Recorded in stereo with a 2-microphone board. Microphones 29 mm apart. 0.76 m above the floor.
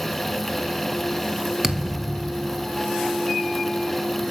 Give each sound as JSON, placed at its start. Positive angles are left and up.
{"t": 1.6, "sound": "a thud", "side_deg": -15, "distance_m": 1.6}